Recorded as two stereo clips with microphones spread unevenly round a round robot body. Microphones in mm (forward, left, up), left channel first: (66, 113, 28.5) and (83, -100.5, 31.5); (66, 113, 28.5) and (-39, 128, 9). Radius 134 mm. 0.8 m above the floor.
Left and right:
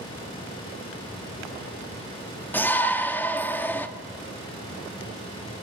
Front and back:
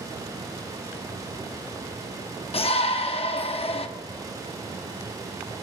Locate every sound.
2.5 s a shout: 15° left, 1.4 m